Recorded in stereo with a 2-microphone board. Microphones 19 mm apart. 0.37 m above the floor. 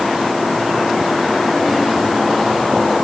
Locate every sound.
Only background noise.